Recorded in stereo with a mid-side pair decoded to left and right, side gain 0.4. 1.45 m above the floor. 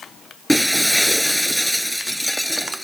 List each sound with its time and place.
0.5 s breaking glass: straight ahead